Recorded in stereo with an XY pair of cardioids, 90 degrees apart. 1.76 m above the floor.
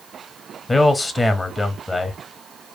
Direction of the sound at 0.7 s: 25° left.